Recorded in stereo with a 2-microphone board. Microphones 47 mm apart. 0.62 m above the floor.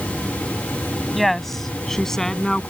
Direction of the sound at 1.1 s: 5° left (ahead or behind).